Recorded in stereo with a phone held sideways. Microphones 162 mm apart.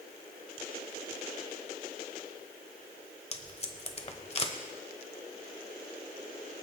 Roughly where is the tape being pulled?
Left.